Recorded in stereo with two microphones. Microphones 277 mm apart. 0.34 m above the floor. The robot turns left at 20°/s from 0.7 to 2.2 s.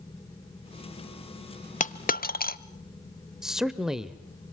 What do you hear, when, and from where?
1.8 s a dropped coin: 30° left (ahead or behind), 0.6 m; by 2.6 s 35° left (ahead or behind), 0.6 m
3.4 s a man speaking: centre (ahead or behind), 0.9 m